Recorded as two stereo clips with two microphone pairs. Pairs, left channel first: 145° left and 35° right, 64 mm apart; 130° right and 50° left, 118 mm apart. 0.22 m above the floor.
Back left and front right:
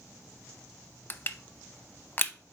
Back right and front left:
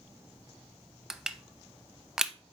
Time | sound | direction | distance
1.1 | crushing | 125° left | 0.5 m